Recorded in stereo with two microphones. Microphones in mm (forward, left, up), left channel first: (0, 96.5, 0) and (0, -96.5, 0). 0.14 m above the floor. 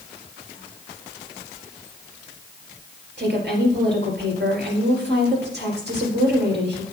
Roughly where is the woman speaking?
Right.